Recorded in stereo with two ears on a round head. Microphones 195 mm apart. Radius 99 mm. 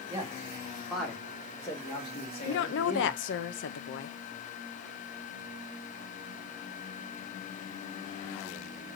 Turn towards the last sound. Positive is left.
turn(degrees=60)  # may be behind; listen again after turning